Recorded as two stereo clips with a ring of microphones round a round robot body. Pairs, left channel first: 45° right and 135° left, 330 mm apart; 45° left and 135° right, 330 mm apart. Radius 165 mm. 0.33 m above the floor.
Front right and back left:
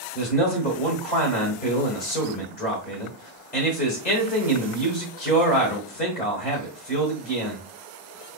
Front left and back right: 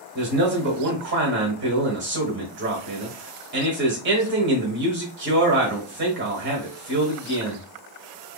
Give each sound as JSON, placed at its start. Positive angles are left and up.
{"t": 0.1, "sound": "a man speaking", "azimuth_deg": -95, "distance_m": 1.2}